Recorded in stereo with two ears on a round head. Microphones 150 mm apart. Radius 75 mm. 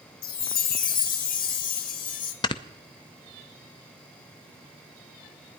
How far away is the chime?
About 1.4 m.